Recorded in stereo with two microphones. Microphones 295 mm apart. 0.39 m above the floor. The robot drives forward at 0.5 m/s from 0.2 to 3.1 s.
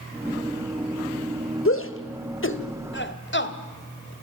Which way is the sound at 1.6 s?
45° left (ahead or behind).